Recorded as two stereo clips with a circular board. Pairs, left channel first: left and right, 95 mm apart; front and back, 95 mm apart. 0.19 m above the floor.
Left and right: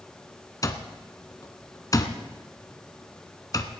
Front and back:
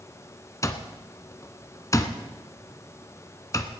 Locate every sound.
0.6 s an alarm clock: 50° left, 1.0 m